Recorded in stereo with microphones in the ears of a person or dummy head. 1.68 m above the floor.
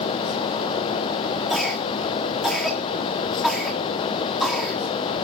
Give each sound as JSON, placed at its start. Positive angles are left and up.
{"t": 1.5, "sound": "a cough", "side_deg": 0, "distance_m": 3.0}